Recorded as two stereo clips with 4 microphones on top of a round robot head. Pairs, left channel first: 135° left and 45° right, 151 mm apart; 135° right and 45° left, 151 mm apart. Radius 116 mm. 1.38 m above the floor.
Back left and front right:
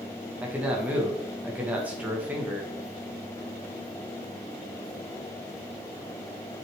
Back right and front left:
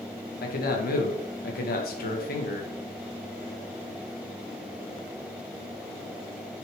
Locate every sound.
0.4 s a man speaking: 125° right, 1.9 m